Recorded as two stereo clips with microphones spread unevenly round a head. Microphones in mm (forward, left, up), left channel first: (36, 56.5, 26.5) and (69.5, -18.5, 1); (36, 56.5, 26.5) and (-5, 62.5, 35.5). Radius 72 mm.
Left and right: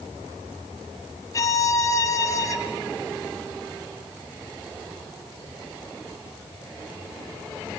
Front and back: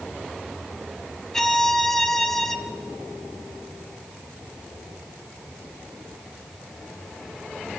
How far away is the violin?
About 3 m.